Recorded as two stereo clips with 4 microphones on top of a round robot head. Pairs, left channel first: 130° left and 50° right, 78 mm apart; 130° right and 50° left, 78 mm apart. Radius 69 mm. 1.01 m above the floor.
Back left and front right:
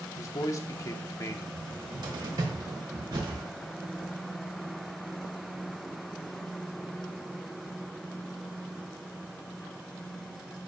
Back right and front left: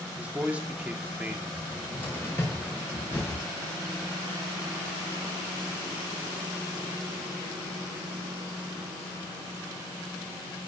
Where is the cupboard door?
75° right, 3 m.